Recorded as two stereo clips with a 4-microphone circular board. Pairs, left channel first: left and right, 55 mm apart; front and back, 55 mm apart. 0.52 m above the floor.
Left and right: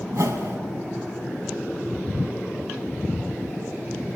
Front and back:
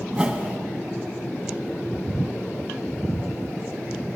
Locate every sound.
0.1 s a whoosh: 115° right, 2.5 m